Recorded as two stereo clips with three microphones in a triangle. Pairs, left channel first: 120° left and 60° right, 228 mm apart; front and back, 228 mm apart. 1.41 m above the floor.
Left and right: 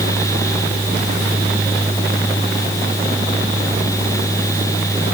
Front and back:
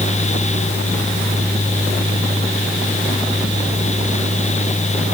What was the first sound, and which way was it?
Only background noise.